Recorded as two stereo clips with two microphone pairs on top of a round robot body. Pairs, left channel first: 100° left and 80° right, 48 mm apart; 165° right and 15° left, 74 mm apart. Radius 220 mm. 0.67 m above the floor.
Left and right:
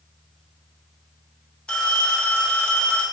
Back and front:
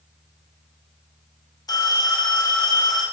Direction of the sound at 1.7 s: 170° left.